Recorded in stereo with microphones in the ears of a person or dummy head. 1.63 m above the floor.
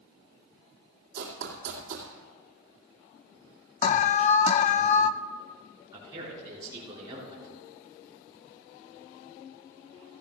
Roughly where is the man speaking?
Right.